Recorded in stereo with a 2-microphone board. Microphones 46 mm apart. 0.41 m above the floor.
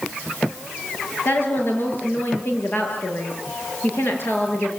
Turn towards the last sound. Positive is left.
turn(degrees=55)  # may be behind; listen again after turning